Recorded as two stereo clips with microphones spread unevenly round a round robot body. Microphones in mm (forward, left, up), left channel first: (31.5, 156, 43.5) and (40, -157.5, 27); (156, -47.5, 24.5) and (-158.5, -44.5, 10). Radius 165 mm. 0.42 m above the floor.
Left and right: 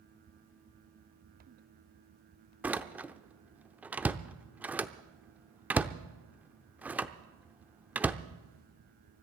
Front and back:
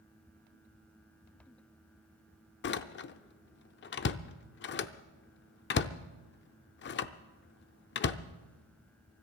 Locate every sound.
2.6 s a door slam: 15° right, 0.6 m